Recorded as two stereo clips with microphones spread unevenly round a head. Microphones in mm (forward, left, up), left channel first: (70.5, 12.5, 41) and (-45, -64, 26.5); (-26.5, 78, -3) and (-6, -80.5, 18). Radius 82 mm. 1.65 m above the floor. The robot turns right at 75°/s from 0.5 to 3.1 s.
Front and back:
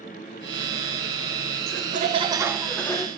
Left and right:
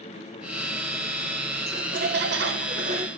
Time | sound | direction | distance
1.7 | laughter | 130° right | 1.2 m